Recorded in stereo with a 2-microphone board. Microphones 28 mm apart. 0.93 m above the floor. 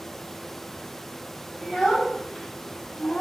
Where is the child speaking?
20° right (ahead or behind), 1.3 m; by 3.2 s 45° left (ahead or behind), 0.5 m.